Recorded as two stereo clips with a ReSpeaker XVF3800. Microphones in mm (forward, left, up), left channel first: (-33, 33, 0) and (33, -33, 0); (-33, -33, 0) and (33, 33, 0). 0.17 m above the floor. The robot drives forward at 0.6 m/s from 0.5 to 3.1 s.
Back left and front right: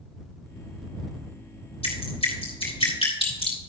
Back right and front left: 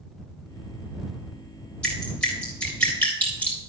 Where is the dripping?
145° left, 3.5 m; by 3.6 s 150° left, 4.5 m.